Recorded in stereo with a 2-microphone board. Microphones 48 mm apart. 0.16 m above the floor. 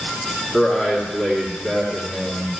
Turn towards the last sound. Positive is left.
turn(degrees=5)  # may be behind; listen again after turning